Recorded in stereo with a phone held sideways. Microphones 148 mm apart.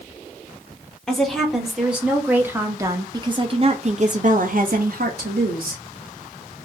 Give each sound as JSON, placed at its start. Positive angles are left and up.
{"t": 1.1, "sound": "a woman speaking", "side_deg": 0, "distance_m": 1.9}